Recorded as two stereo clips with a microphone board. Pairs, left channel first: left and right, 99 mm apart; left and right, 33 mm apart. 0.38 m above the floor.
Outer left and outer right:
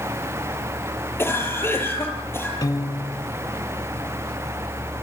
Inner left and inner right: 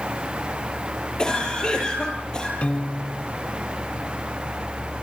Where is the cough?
20° left (ahead or behind), 9 m.